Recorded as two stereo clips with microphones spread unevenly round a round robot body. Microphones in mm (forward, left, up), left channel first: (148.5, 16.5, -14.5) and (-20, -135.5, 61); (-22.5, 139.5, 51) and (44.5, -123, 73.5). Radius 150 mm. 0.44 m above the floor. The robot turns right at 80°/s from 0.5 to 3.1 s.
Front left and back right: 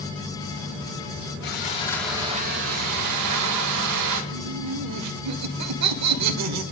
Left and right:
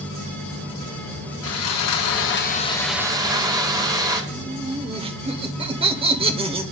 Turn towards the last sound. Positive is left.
turn(degrees=-145)